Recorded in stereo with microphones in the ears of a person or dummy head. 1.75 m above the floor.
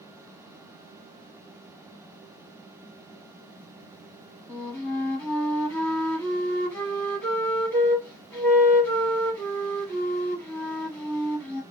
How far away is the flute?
About 1.9 m.